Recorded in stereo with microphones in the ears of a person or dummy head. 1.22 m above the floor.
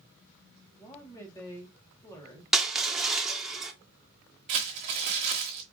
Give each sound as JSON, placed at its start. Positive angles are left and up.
{"t": 0.8, "sound": "a woman speaking", "side_deg": 15, "distance_m": 1.0}
{"t": 2.5, "sound": "crushing", "side_deg": 0, "distance_m": 0.6}
{"t": 4.5, "sound": "crumpling", "side_deg": -25, "distance_m": 1.0}